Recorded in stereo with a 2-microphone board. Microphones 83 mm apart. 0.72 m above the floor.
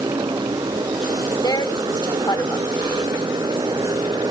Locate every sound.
0.0 s a motorcycle: 60° right (ahead or behind)
1.4 s a woman speaking: 55° left (ahead or behind)